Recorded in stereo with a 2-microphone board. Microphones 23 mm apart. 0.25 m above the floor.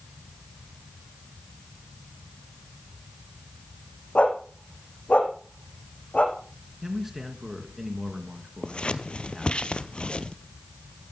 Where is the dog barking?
80° left, 5 m.